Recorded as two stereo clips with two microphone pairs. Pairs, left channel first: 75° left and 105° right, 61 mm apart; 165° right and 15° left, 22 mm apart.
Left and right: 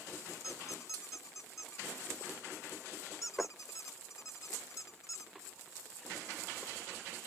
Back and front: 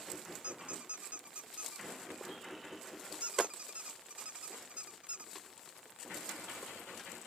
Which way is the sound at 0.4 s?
40° left.